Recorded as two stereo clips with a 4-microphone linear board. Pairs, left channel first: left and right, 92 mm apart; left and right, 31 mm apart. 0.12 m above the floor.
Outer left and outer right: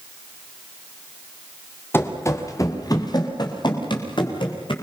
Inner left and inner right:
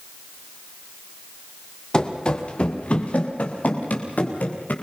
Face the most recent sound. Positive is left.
turn(degrees=65)  # may be behind; listen again after turning